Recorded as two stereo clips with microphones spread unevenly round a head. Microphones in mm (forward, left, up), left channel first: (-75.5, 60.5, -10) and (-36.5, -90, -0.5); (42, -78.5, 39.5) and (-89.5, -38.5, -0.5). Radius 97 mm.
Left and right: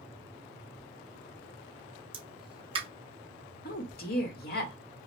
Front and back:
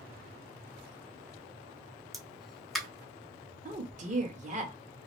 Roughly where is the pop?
Behind right.